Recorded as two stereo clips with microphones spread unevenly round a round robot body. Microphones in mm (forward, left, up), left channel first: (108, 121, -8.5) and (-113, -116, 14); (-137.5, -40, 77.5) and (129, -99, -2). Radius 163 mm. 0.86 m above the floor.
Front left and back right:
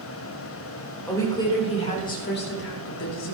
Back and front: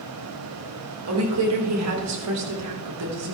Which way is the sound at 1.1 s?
35° right.